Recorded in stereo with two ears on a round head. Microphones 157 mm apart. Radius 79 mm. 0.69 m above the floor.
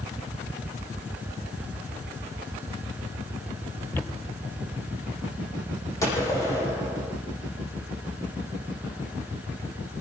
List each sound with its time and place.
3.9 s footsteps: 15° left (ahead or behind), 1.0 m; by 5.9 s 45° right (ahead or behind), 2.5 m
6.0 s a gunshot: 15° left (ahead or behind), 9 m